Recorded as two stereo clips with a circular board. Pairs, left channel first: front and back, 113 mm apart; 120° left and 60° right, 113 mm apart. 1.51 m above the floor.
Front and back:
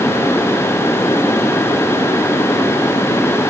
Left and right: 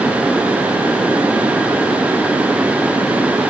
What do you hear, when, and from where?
Only background noise.